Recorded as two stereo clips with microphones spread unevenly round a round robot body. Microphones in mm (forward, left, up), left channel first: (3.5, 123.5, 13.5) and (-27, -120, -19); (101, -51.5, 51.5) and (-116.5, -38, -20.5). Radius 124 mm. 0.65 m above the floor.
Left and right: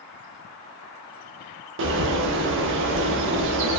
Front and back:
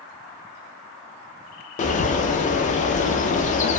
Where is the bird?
65° right, 0.5 m.